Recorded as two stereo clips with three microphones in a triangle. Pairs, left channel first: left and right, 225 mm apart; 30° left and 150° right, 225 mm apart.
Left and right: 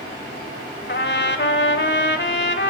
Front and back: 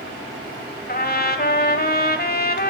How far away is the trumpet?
About 1.1 m.